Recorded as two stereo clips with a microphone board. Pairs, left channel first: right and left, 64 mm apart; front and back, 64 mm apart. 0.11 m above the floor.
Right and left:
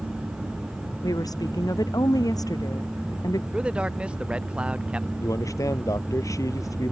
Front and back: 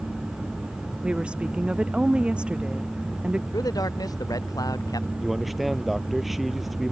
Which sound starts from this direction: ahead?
A man speaking, at 3.5 s.